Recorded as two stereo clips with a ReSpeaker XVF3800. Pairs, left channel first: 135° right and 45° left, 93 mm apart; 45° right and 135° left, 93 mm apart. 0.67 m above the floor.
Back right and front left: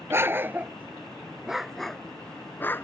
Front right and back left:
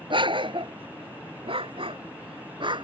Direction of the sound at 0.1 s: 110° left.